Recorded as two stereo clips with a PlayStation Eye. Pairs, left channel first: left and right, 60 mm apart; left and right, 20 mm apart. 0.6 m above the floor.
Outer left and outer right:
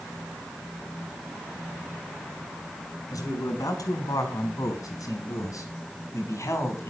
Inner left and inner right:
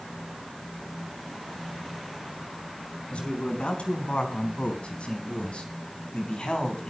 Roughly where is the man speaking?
Left.